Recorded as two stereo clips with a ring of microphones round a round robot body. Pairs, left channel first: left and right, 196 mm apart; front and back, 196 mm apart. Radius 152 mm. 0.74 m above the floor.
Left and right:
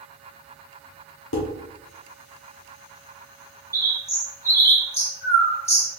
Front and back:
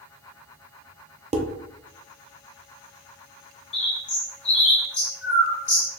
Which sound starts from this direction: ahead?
A bird, at 3.7 s.